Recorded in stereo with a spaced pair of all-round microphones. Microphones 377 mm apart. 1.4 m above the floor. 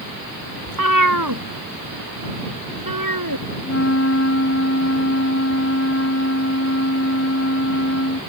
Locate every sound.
0.7 s a cat meowing: 55° right (ahead or behind); by 3.5 s 65° right (ahead or behind)
3.6 s a flute: 45° left (ahead or behind)